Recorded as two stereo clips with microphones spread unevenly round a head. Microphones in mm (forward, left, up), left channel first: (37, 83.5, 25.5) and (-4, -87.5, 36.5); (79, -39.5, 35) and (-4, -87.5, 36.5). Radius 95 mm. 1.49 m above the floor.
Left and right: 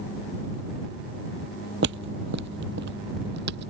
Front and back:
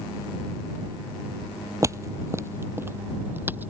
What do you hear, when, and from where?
1.8 s footsteps: 100° right; by 3.7 s 80° right